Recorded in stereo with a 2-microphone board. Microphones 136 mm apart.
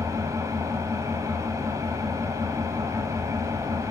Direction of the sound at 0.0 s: 25° right (ahead or behind).